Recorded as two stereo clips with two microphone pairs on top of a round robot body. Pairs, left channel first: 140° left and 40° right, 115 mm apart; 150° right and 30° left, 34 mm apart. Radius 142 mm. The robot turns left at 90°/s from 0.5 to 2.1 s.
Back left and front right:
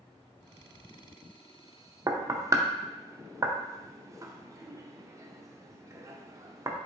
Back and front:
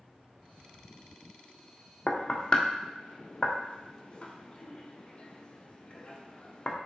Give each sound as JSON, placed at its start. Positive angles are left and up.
{"t": 2.1, "sound": "knocking", "azimuth_deg": -95, "distance_m": 0.7}